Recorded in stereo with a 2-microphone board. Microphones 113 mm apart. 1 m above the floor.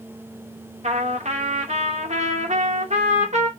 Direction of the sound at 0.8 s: 75° right (ahead or behind).